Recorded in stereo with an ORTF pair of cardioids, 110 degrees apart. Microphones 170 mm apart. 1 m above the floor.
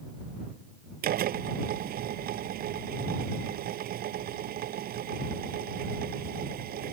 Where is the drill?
60° right.